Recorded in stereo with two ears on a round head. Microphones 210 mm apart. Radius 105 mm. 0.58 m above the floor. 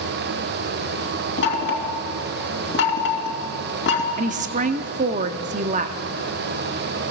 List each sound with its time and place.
1.4 s knocking: 50° left (ahead or behind), 3 m
4.2 s a woman speaking: 35° right (ahead or behind), 0.8 m